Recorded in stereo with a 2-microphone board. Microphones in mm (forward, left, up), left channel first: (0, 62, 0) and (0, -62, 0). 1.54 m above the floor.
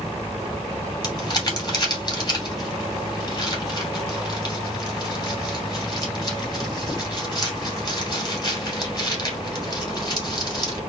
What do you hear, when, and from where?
1.0 s crumpling: 35° left (ahead or behind), 2.5 m